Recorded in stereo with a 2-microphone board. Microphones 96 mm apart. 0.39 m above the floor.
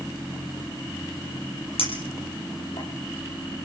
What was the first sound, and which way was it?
A clink, 85° left.